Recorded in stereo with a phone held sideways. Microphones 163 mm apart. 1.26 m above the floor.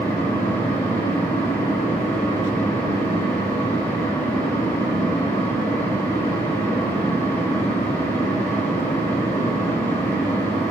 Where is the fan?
20° left (ahead or behind), 4.5 m.